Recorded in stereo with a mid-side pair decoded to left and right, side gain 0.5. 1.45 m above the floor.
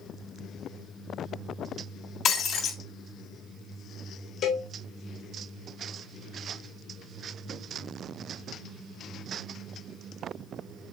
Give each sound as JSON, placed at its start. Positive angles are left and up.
{"t": 2.2, "sound": "breaking glass", "azimuth_deg": 55, "distance_m": 3.0}
{"t": 4.4, "sound": "a cowbell", "azimuth_deg": 60, "distance_m": 2.5}